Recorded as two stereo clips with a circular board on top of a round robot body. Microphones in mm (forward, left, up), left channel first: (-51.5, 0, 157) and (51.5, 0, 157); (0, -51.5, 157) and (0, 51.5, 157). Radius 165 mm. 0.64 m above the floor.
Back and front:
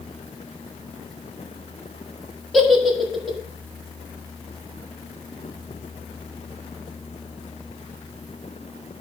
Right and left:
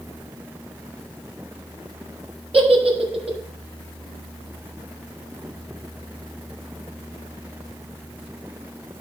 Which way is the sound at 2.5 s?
90° left.